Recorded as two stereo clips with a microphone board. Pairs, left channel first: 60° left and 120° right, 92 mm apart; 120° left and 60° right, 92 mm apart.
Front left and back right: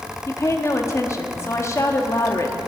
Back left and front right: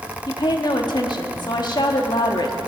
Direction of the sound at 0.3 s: 110° left.